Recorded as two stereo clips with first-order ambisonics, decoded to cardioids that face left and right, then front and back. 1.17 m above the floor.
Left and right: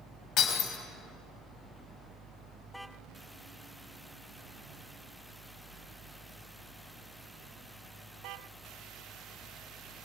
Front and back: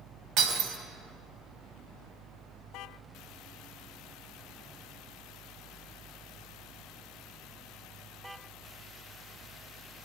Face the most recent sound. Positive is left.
turn(degrees=140)